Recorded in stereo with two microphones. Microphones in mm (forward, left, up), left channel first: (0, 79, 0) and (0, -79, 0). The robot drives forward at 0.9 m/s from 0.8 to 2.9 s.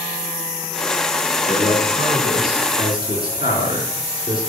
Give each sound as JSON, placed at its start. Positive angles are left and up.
{"t": 1.5, "sound": "a man speaking", "side_deg": 75, "distance_m": 4.5}